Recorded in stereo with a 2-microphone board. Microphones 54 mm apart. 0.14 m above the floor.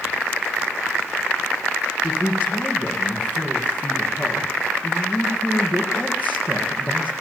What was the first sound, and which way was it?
A man speaking, 35° left (ahead or behind).